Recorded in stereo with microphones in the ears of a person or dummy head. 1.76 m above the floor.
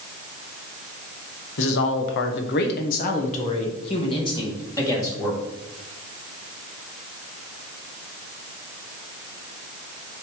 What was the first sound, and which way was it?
A woman speaking, 70° left (ahead or behind).